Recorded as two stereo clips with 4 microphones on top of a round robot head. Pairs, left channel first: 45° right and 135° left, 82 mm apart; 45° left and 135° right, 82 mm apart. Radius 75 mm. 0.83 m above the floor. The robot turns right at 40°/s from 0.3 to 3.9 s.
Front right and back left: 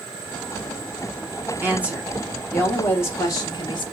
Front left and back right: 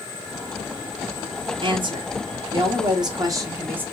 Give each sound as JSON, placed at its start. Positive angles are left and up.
{"t": 1.6, "sound": "a woman speaking", "azimuth_deg": -160, "distance_m": 1.2}